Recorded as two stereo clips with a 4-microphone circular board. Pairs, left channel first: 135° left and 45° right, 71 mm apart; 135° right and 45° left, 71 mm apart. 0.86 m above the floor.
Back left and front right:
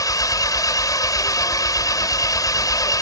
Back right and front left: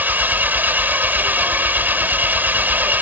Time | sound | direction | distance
0.0 | an engine running | 110° left | ?